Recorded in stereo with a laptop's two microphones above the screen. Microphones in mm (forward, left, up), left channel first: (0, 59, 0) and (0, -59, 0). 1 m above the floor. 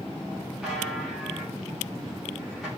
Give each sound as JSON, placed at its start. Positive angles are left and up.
{"t": 0.6, "sound": "a buzzer", "side_deg": 0, "distance_m": 4.0}